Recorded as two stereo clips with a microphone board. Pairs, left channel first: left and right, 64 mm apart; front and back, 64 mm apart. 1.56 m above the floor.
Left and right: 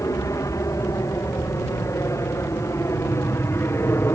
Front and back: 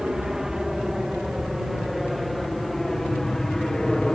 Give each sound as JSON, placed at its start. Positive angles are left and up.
{"t": 0.0, "sound": "an aircraft", "azimuth_deg": 100}